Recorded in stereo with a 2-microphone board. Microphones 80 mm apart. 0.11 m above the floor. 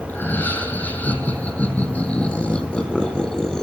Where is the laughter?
25° left (ahead or behind), 5 m; by 3.6 s 5° left (ahead or behind), 3 m.